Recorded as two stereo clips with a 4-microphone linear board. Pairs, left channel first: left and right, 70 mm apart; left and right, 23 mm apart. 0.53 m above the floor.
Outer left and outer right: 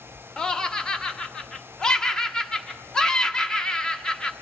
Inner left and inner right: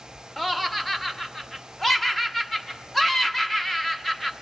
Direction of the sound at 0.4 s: 10° left (ahead or behind).